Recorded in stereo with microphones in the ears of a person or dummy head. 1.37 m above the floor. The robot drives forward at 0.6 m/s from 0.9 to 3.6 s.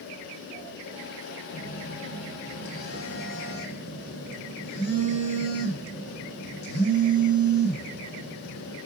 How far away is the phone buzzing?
About 4.5 m.